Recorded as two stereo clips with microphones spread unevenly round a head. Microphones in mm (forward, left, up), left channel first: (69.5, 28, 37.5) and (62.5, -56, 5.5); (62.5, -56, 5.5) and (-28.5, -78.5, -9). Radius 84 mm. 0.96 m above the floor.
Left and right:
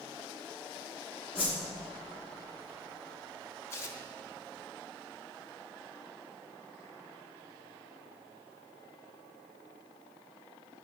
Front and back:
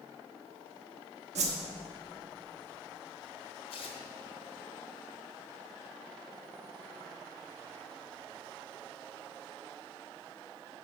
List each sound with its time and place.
1.4 s a whoosh: 165° left, 0.9 m
3.7 s tearing paper: 15° left, 1.1 m